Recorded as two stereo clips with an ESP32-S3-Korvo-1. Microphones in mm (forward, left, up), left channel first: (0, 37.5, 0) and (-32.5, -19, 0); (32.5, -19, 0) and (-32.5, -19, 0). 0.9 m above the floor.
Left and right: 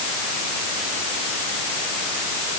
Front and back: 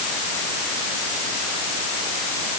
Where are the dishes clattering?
No dishes clattering in this recording.